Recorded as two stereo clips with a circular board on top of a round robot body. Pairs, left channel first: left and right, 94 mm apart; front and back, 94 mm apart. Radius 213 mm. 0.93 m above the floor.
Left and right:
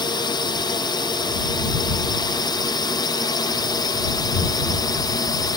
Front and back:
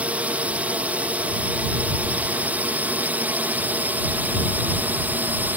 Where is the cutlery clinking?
I don't hear cutlery clinking.